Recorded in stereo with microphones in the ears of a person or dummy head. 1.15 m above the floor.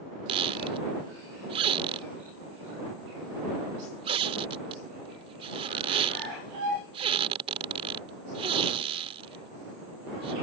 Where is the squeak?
35° right (ahead or behind).